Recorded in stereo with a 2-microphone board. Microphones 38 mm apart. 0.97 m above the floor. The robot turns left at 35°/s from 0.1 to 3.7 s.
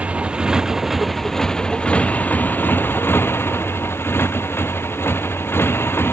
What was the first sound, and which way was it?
A motorcycle, 150° right.